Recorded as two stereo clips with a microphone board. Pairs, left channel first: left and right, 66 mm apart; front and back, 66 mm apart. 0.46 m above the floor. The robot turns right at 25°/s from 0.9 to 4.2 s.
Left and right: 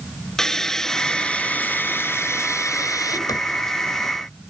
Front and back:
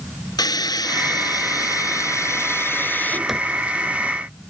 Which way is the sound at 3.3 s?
95° left.